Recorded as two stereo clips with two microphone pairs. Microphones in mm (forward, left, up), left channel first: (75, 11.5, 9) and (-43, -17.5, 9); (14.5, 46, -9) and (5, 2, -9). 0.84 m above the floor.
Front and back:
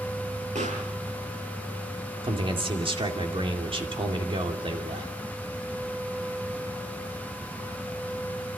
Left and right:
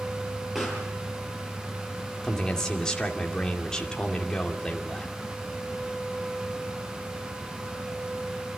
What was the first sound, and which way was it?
A pop, 175° left.